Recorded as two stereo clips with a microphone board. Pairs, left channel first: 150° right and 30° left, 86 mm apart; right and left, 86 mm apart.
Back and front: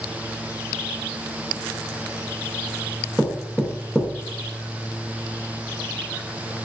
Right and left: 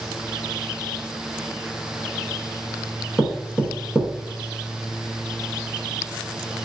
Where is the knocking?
130° left, 0.8 m.